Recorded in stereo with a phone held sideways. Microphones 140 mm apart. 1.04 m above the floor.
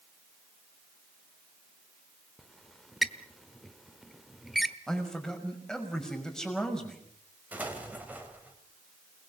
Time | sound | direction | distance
2.4 | a squeak | centre (ahead or behind) | 1.1 m
4.9 | a man speaking | 5° left (ahead or behind) | 5.5 m
7.5 | an explosion | 10° right (ahead or behind) | 4 m